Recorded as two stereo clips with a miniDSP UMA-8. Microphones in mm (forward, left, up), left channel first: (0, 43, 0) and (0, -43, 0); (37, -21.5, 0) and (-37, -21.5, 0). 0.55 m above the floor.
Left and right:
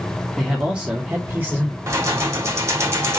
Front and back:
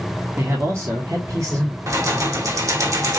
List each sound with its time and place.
0.4 s a man speaking: straight behind, 1.4 m; by 1.8 s 150° right, 2.5 m
1.9 s keys jangling: 145° right, 1.3 m